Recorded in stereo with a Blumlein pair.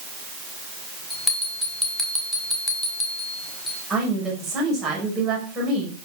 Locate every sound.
1.1 s a bell: 5° left, 5 m
3.9 s a woman speaking: 15° right, 5.5 m